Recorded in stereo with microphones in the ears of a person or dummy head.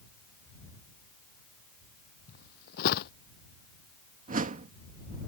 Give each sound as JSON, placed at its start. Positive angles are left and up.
{"t": 2.3, "sound": "footsteps", "side_deg": 60}
{"t": 4.3, "sound": "a whoosh", "side_deg": -35}